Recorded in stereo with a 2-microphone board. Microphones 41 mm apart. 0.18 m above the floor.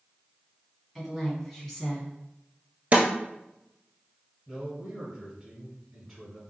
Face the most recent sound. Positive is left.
turn(degrees=-5)  # may be behind; listen again after turning